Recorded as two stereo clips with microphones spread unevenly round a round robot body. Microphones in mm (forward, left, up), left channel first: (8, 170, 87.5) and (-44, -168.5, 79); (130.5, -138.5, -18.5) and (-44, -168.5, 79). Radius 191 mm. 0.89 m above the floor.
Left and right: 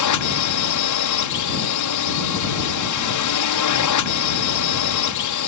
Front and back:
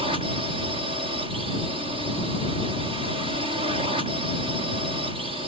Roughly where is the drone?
Left.